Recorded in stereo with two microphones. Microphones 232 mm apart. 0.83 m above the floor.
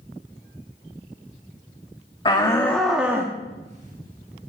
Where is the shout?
20° left (ahead or behind), 1.2 m; by 4.5 s 50° right (ahead or behind), 1.6 m.